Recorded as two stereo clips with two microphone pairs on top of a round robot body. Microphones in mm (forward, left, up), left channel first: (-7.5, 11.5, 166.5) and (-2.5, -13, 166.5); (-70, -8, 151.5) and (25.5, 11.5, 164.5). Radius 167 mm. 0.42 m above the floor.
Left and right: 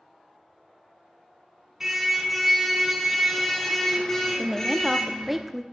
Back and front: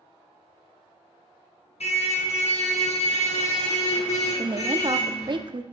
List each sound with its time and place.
1.8 s a car horn: 155° right, 3.5 m; by 5.4 s 170° left, 6.5 m
4.4 s a woman speaking: 5° left, 1.4 m